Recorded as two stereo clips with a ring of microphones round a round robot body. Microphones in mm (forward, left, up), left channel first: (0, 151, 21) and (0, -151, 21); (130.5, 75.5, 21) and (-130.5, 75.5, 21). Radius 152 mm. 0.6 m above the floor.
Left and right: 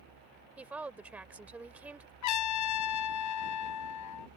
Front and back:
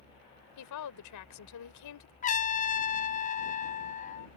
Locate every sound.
0.6 s a woman speaking: 5° right
2.2 s a trumpet: 60° left